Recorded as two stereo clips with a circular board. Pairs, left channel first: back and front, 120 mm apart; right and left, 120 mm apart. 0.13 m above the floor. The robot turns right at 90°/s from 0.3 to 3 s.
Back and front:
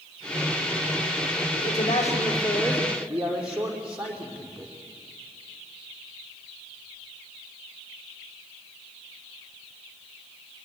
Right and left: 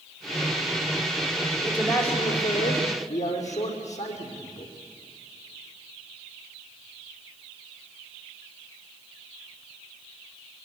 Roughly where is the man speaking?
Behind left.